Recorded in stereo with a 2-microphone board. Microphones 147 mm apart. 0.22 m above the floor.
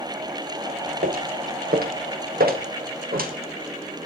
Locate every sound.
1.0 s footsteps: 80° right, 3 m; by 3.3 s 85° right, 3.5 m